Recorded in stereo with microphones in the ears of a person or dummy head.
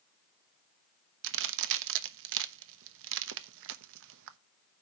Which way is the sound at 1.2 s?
70° right (ahead or behind).